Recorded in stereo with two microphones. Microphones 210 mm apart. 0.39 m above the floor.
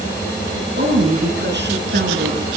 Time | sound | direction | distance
0.8 | a woman speaking | 55° right (ahead or behind) | 6.5 m